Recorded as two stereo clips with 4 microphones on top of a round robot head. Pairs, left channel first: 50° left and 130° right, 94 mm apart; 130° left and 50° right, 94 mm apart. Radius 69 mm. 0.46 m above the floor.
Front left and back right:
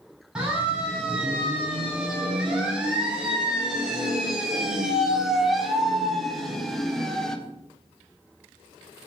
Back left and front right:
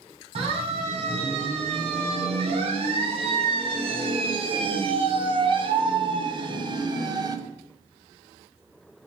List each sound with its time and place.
0.3 s a siren: 50° right, 6.5 m; by 7.4 s 30° right, 2.5 m